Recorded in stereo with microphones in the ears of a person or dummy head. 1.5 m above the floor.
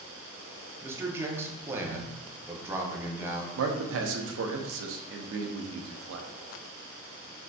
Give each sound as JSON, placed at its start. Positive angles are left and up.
{"t": 0.8, "sound": "a man speaking", "side_deg": -10, "distance_m": 0.6}
{"t": 3.6, "sound": "a man speaking", "side_deg": -85, "distance_m": 0.6}